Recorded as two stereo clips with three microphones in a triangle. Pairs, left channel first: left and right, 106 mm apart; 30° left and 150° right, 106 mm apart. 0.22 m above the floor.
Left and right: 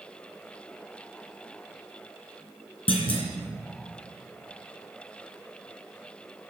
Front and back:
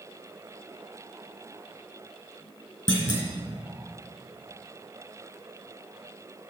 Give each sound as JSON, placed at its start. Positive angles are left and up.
{"t": 2.9, "sound": "a clunk", "azimuth_deg": 70, "distance_m": 2.5}